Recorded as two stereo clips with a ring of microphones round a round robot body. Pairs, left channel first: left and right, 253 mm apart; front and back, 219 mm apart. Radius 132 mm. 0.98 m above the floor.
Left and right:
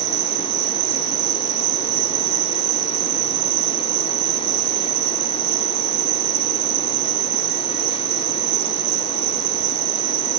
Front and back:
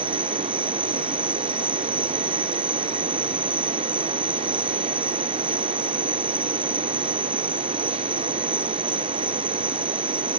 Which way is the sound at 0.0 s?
95° right.